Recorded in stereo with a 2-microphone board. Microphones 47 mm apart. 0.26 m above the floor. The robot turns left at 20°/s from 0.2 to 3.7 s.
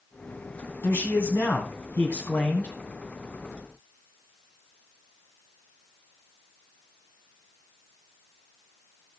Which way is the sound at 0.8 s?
80° left.